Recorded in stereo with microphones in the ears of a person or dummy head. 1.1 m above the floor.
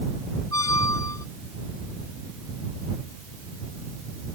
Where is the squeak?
20° left (ahead or behind).